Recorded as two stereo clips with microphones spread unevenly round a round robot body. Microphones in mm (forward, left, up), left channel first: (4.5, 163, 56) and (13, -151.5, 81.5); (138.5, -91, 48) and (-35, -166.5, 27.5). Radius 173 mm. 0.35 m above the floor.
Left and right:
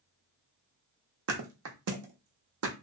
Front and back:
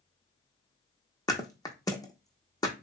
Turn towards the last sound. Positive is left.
turn(degrees=-45)